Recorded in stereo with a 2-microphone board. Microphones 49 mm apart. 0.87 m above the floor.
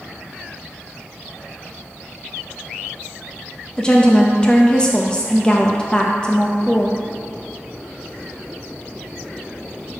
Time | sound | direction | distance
3.8 | a woman speaking | 20° left (ahead or behind) | 0.6 m